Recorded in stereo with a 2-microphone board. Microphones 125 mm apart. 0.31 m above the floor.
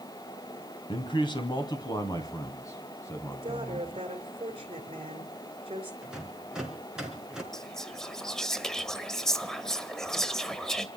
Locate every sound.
0.9 s a man speaking: 40° left (ahead or behind), 2.5 m; by 3.9 s 20° left (ahead or behind), 3.5 m
3.3 s a woman speaking: 45° right (ahead or behind), 4 m
6.0 s a rattle: 5° right (ahead or behind), 4.5 m
7.5 s whispering: 5° left (ahead or behind), 1.4 m